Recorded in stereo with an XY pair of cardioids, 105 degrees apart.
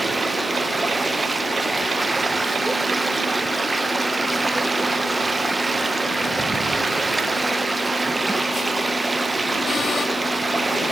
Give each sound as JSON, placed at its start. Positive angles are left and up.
{"t": 0.0, "sound": "running water", "azimuth_deg": -20, "distance_m": 1.1}